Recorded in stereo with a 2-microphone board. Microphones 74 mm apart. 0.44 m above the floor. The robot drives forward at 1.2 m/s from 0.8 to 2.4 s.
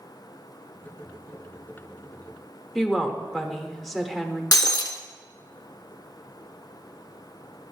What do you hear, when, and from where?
2.8 s a woman speaking: 5° left (ahead or behind), 0.8 m
4.5 s breaking glass: 60° left (ahead or behind), 0.6 m